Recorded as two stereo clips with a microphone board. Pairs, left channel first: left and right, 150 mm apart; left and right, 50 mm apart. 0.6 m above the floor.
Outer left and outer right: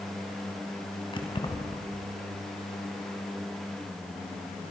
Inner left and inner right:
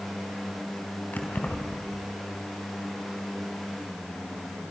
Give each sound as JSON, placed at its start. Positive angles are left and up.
{"t": 1.1, "sound": "keys jangling", "side_deg": 30, "distance_m": 3.5}